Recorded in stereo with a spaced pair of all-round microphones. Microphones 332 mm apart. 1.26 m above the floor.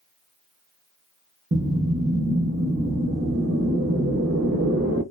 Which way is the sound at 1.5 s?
40° right (ahead or behind).